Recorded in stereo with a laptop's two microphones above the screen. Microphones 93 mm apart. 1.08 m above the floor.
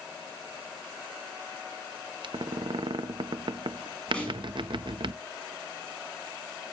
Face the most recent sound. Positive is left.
turn(degrees=10)  # may be behind; listen again after turning